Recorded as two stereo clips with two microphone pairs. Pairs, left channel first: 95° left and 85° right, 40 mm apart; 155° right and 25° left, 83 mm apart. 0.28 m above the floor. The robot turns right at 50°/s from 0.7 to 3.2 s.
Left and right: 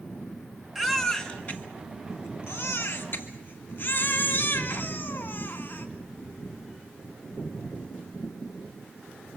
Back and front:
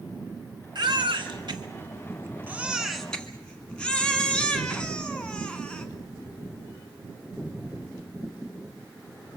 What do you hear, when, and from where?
0.8 s a baby crying: 5° left, 1.8 m; by 5.9 s 125° left, 1.8 m